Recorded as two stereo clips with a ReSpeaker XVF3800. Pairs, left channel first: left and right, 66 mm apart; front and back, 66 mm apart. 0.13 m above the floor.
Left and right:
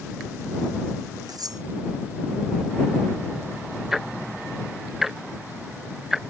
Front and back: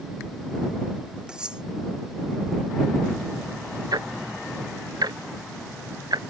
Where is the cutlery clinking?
100° right.